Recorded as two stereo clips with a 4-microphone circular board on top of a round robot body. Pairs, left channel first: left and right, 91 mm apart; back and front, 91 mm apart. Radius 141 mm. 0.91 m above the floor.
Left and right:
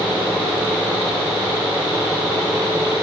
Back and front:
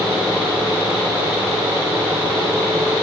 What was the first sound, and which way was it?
Only background noise.